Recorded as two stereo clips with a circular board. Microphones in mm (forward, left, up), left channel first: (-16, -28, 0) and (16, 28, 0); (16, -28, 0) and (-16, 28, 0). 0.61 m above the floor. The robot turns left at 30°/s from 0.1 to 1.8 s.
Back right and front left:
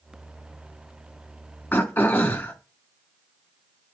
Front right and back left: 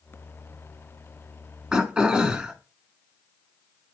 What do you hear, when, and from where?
1.7 s throat clearing: 170° right, 1.7 m; by 2.5 s 175° right, 1.7 m